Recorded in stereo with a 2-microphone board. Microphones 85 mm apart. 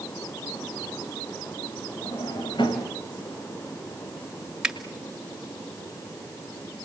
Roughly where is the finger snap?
Centre.